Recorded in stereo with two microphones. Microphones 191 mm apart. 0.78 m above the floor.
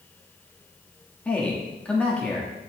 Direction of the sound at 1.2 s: 5° left (ahead or behind).